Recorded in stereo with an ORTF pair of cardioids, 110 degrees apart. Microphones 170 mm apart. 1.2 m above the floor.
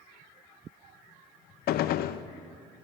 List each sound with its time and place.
1.7 s a gunshot: 65° left, 0.6 m